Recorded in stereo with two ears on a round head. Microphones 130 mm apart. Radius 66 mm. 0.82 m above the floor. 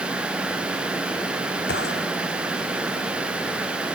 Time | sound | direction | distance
1.7 | a gunshot | 80° left | ?